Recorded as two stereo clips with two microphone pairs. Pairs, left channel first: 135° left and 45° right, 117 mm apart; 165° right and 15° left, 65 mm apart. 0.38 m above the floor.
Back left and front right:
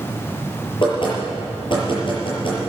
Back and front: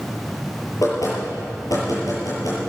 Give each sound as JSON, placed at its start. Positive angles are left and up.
{"t": 0.8, "sound": "knocking", "azimuth_deg": 175, "distance_m": 6.0}